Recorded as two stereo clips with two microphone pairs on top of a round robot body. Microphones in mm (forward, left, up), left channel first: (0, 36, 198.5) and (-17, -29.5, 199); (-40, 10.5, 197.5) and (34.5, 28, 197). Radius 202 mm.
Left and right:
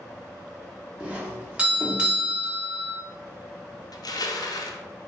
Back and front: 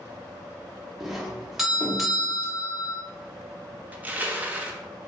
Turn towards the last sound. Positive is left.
turn(degrees=85)